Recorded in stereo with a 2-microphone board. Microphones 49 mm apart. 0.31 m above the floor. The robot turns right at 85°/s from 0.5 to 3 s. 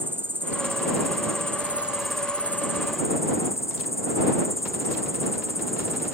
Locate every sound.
0.0 s an insect: 135° right; by 6.1 s 75° left